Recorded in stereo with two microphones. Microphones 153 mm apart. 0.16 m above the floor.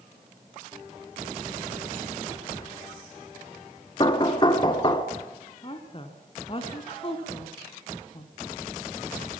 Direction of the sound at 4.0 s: 30° left (ahead or behind).